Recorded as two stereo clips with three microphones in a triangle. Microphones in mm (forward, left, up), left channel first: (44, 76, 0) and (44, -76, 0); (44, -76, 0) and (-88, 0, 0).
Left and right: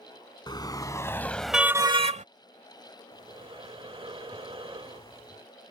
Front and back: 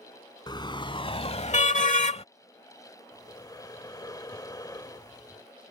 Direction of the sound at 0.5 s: 30° left.